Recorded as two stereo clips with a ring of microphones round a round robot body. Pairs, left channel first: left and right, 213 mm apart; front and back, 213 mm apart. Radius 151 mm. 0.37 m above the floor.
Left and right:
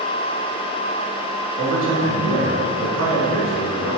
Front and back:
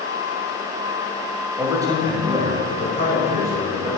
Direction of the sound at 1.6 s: 95° right.